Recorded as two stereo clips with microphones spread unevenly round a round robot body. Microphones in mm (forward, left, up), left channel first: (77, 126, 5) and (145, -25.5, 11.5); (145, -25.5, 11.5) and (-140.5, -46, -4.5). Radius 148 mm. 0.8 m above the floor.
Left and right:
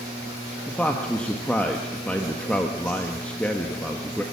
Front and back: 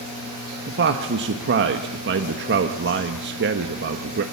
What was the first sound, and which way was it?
A man speaking, 165° right.